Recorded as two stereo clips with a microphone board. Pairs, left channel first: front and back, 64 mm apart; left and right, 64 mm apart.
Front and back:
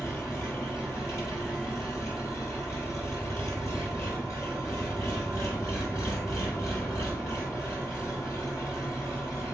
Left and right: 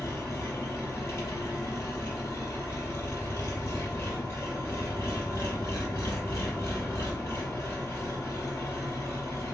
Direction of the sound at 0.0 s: 40° left.